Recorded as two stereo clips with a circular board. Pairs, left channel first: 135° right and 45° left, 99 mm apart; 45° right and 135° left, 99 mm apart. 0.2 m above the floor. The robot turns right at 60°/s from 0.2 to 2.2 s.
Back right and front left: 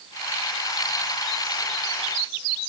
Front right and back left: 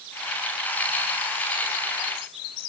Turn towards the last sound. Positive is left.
No sound to turn to.